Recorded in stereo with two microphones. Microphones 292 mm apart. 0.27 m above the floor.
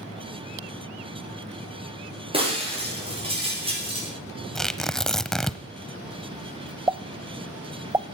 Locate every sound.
2.3 s breaking glass: 20° right (ahead or behind), 8 m
4.5 s tearing paper: centre (ahead or behind), 0.7 m
6.9 s a pop: 15° right (ahead or behind), 0.5 m